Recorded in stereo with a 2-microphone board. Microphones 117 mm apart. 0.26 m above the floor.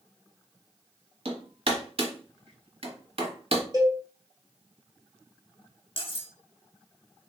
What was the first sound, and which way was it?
Hammering, 55° right (ahead or behind).